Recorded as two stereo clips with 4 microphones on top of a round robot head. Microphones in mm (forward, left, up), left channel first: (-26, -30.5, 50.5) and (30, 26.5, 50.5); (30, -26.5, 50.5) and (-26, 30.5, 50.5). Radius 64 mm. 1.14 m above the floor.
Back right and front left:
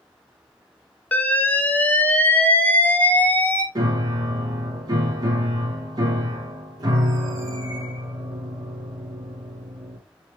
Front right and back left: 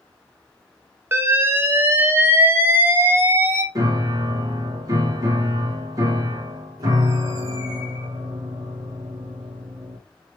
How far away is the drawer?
No drawer in this recording.